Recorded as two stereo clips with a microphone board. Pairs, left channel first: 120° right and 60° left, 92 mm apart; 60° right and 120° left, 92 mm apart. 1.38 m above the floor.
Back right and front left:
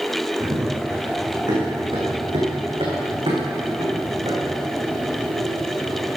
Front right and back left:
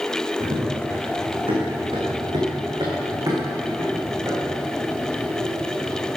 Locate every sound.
0.4 s running footsteps: 110° left, 5 m; by 6.1 s 45° left, 6.5 m